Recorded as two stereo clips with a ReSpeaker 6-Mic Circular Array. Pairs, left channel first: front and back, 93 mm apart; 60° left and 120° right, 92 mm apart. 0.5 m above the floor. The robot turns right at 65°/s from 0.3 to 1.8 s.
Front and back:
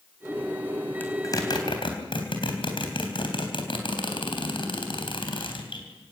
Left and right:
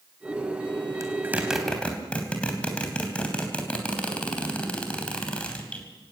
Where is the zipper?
70° right, 3 m; by 5.9 s 20° right, 3 m.